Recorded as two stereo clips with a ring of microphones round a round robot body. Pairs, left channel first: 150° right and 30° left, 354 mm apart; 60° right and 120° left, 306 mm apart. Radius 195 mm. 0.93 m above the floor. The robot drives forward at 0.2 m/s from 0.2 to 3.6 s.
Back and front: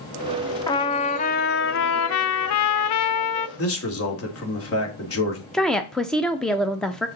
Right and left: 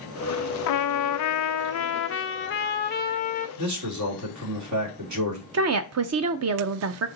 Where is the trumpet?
70° right, 0.6 m; by 3.5 s 125° right, 0.7 m.